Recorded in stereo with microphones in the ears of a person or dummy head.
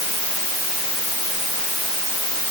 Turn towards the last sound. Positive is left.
No sound to turn to.